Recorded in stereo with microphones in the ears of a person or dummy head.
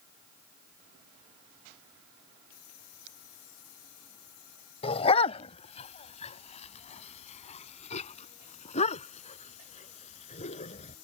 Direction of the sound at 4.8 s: 35° left (ahead or behind).